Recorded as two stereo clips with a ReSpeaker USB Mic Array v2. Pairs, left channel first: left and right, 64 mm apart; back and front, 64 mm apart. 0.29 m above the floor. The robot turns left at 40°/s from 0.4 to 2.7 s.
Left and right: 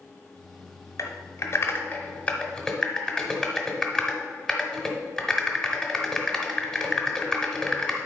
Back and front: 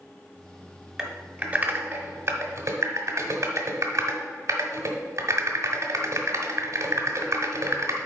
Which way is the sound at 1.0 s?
85° left.